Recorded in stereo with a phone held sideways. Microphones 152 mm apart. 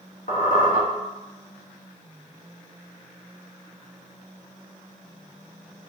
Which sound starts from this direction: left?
A squeak, at 0.3 s.